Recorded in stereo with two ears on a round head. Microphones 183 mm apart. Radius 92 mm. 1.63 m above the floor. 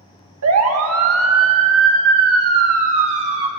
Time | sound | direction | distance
0.4 | a siren | 75° right (ahead or behind) | 2 m